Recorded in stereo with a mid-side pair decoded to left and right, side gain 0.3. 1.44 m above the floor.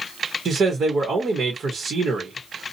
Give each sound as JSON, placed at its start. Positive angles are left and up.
{"t": 0.5, "sound": "a man speaking", "azimuth_deg": -65, "distance_m": 1.2}